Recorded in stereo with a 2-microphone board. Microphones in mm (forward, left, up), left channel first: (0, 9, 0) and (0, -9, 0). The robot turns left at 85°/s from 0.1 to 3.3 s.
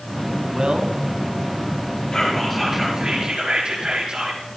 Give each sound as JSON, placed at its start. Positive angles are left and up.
{"t": 0.5, "sound": "a man speaking", "side_deg": -45, "distance_m": 1.7}
{"t": 2.1, "sound": "whispering", "azimuth_deg": 40, "distance_m": 5.5}